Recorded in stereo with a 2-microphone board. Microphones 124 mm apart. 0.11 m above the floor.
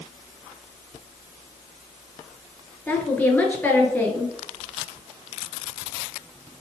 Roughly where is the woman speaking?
Centre.